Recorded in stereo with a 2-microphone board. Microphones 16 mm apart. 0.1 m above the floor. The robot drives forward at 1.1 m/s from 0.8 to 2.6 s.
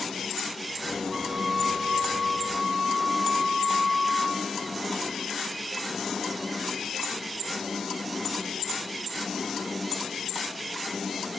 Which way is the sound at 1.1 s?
40° right (ahead or behind).